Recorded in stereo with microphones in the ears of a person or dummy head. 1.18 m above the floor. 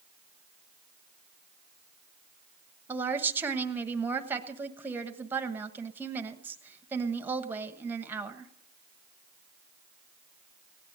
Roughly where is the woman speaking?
Centre.